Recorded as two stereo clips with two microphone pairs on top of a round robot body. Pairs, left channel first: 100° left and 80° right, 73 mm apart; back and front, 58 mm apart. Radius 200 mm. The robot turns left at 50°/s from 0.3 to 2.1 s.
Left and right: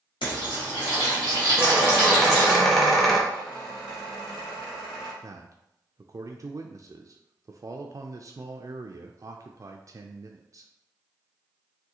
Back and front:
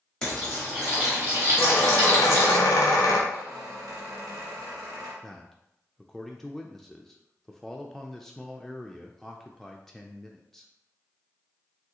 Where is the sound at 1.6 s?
145° right, 0.6 m; by 3.2 s 170° right, 0.6 m.